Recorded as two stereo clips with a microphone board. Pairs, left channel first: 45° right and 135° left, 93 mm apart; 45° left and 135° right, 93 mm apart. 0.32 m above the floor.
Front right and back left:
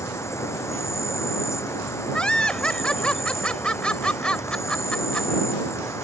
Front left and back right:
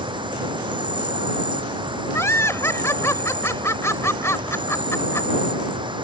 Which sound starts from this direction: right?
An insect, at 0.0 s.